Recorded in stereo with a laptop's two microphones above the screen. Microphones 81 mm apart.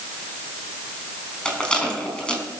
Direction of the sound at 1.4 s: 10° left (ahead or behind).